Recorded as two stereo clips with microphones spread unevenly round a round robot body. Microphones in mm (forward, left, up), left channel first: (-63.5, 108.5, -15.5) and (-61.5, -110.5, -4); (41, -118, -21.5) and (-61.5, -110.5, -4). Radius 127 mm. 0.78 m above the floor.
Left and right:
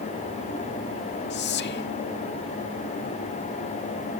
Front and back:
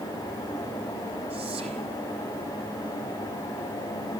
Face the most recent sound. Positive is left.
turn(degrees=120)